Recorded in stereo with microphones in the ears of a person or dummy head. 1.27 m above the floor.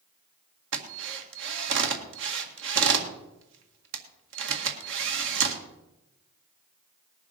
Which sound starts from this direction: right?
A drill, at 0.7 s.